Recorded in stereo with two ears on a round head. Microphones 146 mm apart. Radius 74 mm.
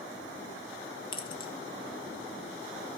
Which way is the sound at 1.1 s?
30° left (ahead or behind).